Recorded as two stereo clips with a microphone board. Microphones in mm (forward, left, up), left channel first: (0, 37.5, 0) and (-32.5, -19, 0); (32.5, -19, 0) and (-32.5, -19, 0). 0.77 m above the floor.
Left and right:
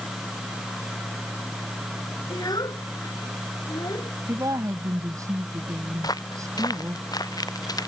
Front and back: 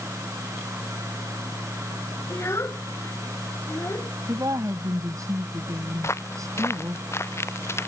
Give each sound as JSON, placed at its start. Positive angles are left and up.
{"t": 2.3, "sound": "a child speaking", "azimuth_deg": 50}
{"t": 4.3, "sound": "a woman speaking", "azimuth_deg": -150}
{"t": 6.0, "sound": "footsteps", "azimuth_deg": 45}